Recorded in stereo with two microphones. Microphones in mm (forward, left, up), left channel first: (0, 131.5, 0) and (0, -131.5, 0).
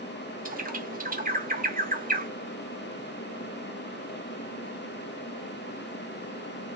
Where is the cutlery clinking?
No cutlery clinking in this recording.